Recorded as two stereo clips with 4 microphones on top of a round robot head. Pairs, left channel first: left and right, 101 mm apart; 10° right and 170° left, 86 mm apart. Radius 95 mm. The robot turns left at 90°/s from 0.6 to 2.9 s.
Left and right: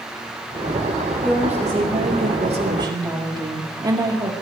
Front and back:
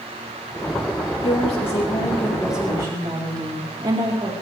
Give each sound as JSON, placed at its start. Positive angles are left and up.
{"t": 1.2, "sound": "a woman speaking", "azimuth_deg": 10, "distance_m": 4.0}